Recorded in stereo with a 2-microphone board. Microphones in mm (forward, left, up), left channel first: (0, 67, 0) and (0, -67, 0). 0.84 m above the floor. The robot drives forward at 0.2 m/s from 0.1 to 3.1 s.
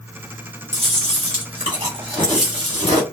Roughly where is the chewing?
Right.